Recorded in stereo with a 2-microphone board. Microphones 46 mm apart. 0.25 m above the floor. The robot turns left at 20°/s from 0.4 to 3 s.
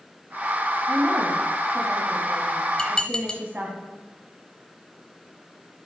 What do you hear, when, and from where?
0.9 s a woman speaking: 85° right, 1.6 m; by 3.8 s 130° right, 1.6 m
2.8 s dishes clattering: 20° left (ahead or behind), 0.7 m